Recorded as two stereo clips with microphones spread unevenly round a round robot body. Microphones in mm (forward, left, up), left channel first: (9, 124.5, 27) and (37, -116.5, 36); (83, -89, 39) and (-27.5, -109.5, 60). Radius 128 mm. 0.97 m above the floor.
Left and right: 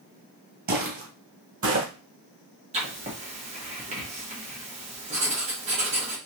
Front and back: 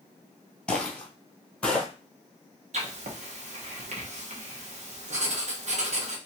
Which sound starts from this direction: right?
Footsteps, at 0.7 s.